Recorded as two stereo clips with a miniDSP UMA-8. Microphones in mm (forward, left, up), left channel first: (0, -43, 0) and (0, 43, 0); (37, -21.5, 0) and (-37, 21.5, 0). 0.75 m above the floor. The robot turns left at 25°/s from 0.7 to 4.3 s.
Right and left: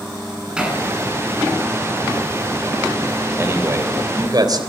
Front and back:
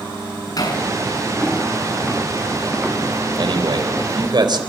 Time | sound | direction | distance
0.6 | hammering | 10° left | 7 m
3.4 | a man speaking | 150° left | 3.5 m